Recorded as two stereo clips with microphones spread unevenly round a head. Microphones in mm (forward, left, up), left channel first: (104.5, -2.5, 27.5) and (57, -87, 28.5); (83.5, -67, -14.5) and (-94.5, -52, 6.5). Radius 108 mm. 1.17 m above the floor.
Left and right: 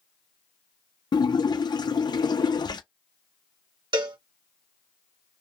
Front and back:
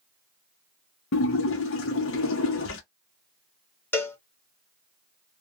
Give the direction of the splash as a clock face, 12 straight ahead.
12 o'clock.